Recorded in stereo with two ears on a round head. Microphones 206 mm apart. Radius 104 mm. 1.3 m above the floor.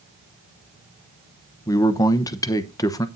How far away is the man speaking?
About 0.9 m.